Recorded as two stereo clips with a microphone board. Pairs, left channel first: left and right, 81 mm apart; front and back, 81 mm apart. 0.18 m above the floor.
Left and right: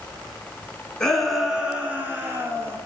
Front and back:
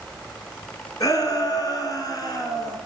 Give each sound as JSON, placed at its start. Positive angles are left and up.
{"t": 1.0, "sound": "a shout", "azimuth_deg": 10, "distance_m": 1.5}